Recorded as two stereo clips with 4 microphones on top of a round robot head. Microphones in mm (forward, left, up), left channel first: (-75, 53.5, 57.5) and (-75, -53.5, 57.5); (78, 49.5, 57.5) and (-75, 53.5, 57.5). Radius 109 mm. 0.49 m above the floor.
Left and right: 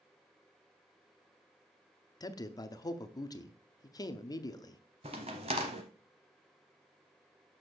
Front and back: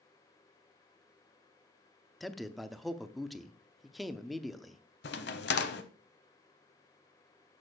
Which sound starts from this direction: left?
A man speaking, at 2.2 s.